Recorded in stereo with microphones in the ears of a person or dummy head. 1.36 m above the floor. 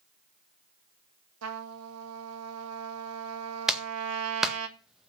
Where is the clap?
5° right (ahead or behind), 1.6 m.